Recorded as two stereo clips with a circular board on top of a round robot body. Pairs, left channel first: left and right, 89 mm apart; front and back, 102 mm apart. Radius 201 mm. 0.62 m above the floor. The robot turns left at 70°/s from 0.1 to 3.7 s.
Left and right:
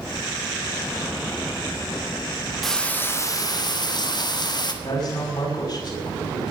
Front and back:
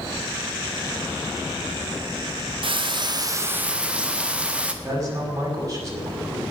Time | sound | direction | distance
2.6 | frying | straight behind | 1.9 m
4.8 | a man speaking | 120° left | 6.5 m